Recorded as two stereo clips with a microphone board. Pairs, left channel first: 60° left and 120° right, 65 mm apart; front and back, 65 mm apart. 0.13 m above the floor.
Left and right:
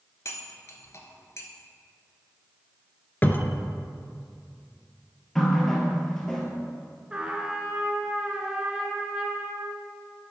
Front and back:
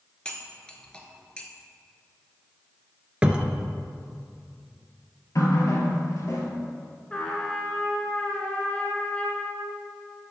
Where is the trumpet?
60° right, 1.4 m.